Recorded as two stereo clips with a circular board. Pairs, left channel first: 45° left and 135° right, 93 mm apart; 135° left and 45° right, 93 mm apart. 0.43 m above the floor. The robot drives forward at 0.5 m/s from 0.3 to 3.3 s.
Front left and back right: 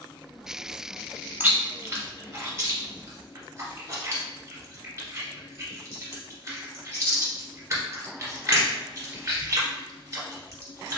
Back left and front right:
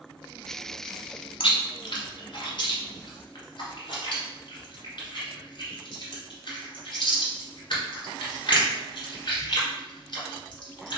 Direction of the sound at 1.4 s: 155° left.